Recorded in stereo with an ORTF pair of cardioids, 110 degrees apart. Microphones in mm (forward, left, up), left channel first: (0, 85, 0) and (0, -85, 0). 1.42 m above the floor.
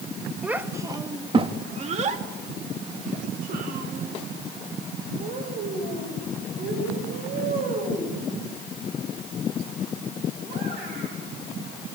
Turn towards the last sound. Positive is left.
turn(degrees=-75)